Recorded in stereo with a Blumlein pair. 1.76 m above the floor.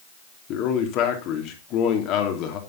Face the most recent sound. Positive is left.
turn(degrees=40)